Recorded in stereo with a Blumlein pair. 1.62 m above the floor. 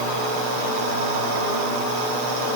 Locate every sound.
Only background noise.